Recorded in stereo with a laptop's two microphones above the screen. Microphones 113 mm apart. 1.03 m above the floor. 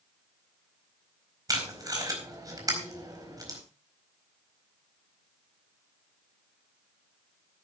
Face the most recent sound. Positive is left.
turn(degrees=-30)  # may be behind; listen again after turning